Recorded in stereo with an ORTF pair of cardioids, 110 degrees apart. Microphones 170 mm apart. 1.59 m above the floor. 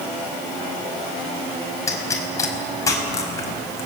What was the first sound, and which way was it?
A pop, 20° left.